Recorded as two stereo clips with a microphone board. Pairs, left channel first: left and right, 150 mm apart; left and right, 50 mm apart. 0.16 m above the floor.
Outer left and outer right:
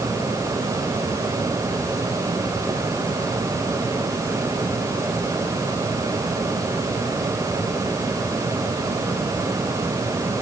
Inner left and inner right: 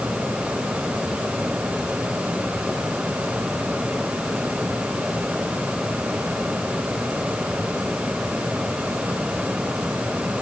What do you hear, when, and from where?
Only background noise.